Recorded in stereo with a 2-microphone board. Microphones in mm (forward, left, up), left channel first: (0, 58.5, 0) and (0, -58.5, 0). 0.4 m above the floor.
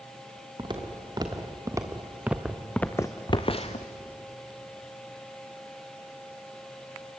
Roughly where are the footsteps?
Right.